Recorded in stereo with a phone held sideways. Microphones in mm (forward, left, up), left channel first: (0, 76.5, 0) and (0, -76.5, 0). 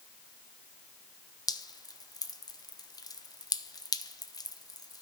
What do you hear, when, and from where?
1.5 s dripping: 25° left (ahead or behind), 0.6 m